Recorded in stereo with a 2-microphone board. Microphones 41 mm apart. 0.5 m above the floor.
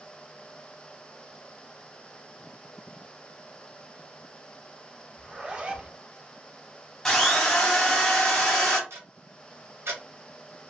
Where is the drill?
10° left (ahead or behind), 0.7 m.